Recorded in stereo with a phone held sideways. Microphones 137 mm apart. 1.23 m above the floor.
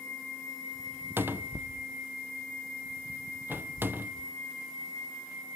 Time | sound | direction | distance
1.2 | a cupboard door | 15° right (ahead or behind) | 0.6 m